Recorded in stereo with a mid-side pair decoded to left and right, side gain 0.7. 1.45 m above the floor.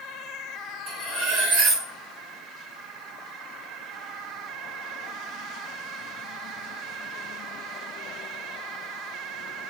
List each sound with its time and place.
0.9 s cutlery clinking: 60° right, 3.5 m